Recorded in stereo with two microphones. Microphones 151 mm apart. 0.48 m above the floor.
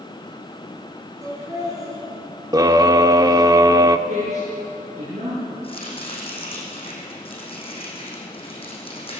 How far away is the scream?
About 0.8 m.